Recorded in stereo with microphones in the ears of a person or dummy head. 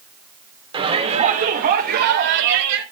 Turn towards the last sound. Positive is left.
turn(degrees=-75)  # may be behind; listen again after turning